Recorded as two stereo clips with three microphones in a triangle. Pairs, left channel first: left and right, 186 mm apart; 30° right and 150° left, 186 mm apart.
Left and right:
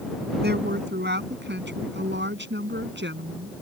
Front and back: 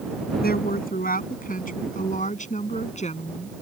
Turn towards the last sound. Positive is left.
turn(degrees=-85)